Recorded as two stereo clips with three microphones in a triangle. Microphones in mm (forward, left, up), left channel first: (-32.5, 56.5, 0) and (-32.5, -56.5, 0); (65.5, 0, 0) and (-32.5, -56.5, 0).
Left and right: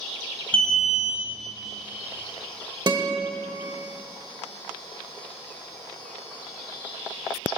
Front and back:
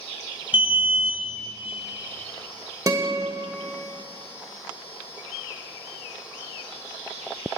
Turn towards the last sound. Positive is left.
turn(degrees=-110)